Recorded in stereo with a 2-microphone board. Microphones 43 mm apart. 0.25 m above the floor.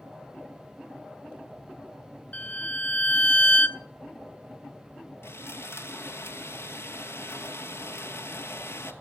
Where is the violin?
35° left (ahead or behind), 0.9 m.